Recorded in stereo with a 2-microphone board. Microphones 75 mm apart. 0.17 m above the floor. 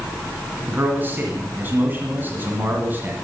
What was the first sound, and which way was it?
A man speaking, 25° right (ahead or behind).